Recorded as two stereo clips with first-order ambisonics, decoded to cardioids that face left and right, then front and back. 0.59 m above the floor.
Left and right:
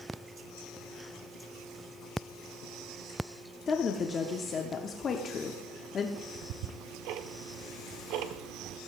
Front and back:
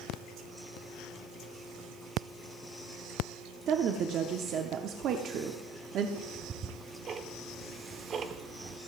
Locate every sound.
3.7 s a woman speaking: 145° left, 0.8 m
6.2 s ticking: 115° right, 0.7 m